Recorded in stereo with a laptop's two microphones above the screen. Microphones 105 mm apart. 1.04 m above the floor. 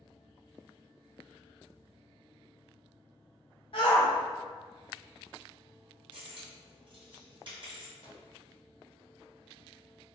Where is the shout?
55° left (ahead or behind), 0.5 m.